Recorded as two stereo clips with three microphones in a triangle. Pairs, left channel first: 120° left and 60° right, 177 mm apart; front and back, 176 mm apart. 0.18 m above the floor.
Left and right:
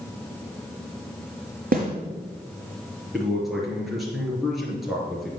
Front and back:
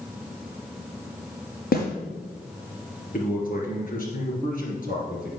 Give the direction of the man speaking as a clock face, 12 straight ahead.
11 o'clock.